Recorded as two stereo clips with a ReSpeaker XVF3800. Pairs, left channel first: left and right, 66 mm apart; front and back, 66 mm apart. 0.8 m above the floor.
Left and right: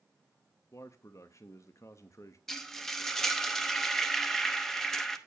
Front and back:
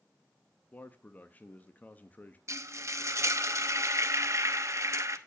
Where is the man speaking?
60° left, 0.6 m.